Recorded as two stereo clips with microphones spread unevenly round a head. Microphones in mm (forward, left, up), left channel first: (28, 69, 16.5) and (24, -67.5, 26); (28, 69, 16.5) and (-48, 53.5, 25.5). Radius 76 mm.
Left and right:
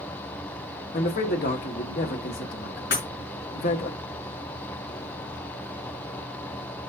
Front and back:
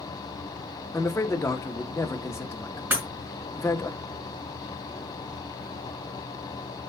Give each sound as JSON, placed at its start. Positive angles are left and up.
{"t": 0.9, "sound": "a man speaking", "azimuth_deg": 70, "distance_m": 1.8}
{"t": 2.9, "sound": "breaking glass", "azimuth_deg": 125, "distance_m": 5.0}